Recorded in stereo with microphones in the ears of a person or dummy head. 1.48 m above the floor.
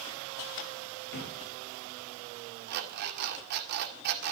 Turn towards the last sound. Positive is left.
turn(degrees=-55)  # may be behind; listen again after turning